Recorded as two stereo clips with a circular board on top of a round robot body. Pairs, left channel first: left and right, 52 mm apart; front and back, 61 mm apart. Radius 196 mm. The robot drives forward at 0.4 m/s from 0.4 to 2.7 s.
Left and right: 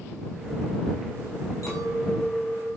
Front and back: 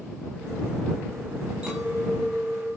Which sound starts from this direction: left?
A clink, at 1.6 s.